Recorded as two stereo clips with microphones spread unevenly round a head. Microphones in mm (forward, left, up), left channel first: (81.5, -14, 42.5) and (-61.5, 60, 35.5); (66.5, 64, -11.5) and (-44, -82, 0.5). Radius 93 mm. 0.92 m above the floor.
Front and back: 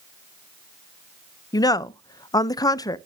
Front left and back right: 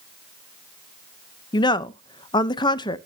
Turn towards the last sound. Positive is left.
turn(degrees=20)